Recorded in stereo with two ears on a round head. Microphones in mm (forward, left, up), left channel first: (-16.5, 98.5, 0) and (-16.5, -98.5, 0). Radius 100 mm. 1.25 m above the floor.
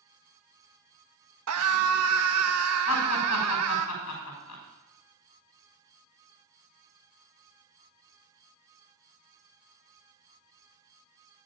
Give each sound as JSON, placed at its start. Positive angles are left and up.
{"t": 1.5, "sound": "a scream", "side_deg": -80, "distance_m": 1.7}
{"t": 2.9, "sound": "laughter", "side_deg": 80, "distance_m": 6.5}